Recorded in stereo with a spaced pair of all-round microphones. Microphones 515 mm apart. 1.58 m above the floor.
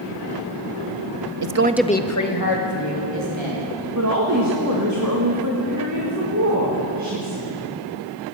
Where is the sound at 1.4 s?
50° right (ahead or behind), 0.6 m; by 3.6 s 60° left (ahead or behind), 2.5 m.